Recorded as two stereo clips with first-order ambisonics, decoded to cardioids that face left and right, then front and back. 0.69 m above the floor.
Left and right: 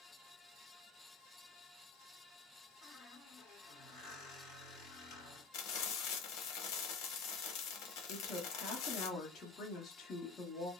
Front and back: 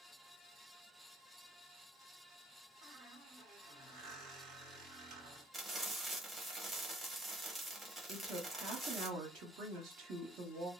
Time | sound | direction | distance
2.8 | a squeak | 130° left | 1.4 m
5.5 | frying | 105° left | 0.9 m
8.1 | a woman speaking | 145° left | 1.0 m